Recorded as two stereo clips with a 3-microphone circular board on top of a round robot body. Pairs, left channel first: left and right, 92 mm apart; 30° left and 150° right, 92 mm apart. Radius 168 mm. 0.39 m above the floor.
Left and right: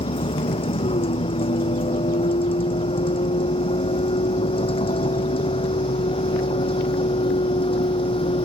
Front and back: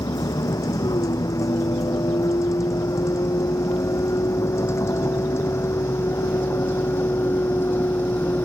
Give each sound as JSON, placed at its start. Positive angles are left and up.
{"t": 0.0, "sound": "a vehicle", "azimuth_deg": 85}